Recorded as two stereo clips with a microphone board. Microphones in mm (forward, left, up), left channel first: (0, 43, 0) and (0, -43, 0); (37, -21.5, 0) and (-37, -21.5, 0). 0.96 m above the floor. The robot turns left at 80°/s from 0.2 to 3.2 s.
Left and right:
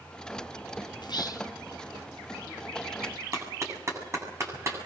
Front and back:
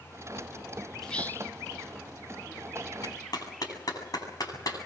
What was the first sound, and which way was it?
Whispering, 85° left.